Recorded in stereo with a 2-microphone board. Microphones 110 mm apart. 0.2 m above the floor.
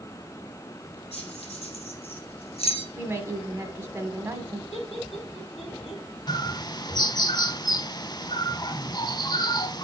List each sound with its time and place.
1.1 s keys jangling: 65° left (ahead or behind), 4.5 m; by 2.9 s 60° left (ahead or behind), 1.8 m
3.0 s a woman speaking: 20° right (ahead or behind), 1.3 m
4.7 s laughter: 70° left (ahead or behind), 6 m
6.3 s a bird: 40° left (ahead or behind), 0.5 m